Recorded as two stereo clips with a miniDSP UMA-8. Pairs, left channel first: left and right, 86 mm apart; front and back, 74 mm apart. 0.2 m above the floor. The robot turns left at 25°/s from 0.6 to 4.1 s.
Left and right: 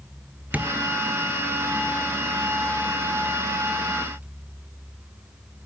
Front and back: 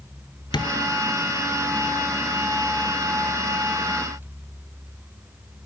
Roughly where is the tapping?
Ahead.